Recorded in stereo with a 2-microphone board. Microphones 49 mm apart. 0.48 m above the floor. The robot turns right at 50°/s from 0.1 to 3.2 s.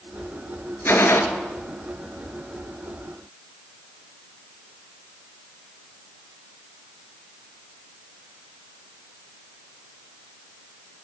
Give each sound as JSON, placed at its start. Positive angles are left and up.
{"t": 0.8, "sound": "a gunshot", "side_deg": 50, "distance_m": 1.2}